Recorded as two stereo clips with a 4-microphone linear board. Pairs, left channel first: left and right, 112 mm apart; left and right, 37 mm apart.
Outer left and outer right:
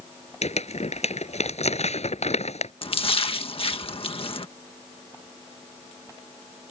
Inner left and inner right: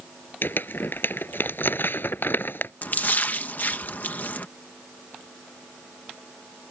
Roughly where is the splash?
Left.